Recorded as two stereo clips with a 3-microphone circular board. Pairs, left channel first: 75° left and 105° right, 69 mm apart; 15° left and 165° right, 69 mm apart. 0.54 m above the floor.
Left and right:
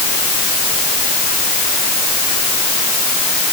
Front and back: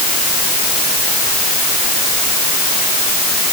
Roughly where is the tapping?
No tapping in this recording.